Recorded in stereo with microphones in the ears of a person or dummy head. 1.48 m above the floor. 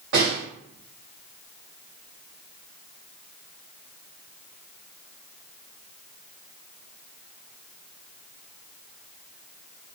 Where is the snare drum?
60° right (ahead or behind), 1.7 m.